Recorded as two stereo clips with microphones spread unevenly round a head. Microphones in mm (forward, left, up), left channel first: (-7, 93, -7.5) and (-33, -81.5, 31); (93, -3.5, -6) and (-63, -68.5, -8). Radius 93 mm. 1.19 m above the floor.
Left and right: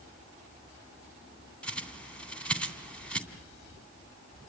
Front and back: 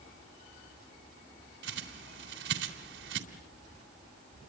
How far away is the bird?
About 3 m.